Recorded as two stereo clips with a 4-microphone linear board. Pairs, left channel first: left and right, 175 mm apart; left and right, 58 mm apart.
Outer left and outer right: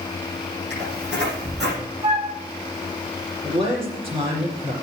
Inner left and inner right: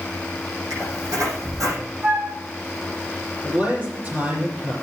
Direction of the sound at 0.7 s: 80° right.